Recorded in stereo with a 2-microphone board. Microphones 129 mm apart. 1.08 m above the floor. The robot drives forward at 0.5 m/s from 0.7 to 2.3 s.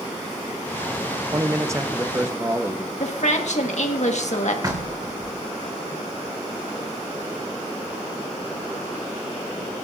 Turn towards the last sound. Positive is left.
turn(degrees=-30)  # may be behind; listen again after turning